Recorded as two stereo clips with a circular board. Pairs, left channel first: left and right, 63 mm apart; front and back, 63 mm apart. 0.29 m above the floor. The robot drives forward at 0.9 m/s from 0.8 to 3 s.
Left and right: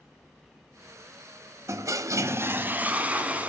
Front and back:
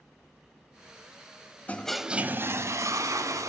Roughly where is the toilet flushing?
Ahead right.